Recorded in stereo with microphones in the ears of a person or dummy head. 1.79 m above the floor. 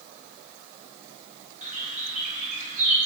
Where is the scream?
No scream in this recording.